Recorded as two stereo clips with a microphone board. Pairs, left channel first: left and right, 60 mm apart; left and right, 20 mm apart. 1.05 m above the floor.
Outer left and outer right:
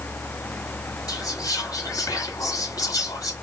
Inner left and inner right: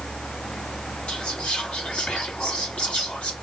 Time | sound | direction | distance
1.1 | whispering | 85° left | 1.9 m